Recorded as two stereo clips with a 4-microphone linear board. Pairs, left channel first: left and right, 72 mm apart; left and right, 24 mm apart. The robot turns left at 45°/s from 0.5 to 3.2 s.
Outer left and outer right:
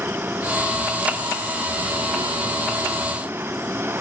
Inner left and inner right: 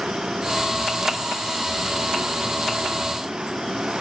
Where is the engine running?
30° right; by 4.0 s 150° right.